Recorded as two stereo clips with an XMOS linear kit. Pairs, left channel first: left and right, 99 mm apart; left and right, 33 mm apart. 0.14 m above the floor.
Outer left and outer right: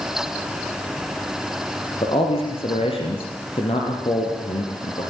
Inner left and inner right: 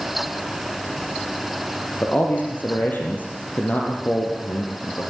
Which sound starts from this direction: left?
A man speaking, at 2.0 s.